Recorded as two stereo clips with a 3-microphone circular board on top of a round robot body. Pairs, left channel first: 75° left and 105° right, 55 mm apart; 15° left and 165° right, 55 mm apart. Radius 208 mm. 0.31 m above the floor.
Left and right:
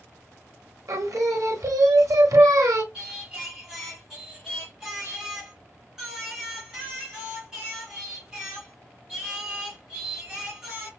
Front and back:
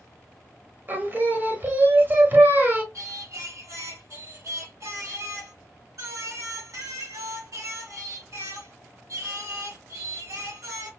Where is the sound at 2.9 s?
175° left, 3 m.